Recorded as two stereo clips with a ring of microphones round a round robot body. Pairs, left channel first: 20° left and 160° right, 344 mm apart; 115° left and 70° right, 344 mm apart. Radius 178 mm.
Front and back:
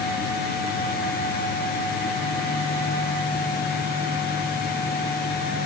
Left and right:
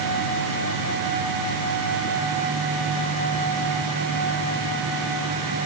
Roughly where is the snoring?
No snoring in this recording.